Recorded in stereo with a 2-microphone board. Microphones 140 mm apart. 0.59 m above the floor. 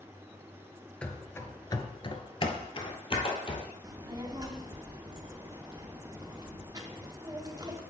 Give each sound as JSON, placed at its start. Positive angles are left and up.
{"t": 1.0, "sound": "running footsteps", "side_deg": 10, "distance_m": 0.7}
{"t": 3.8, "sound": "a child speaking", "side_deg": -30, "distance_m": 0.9}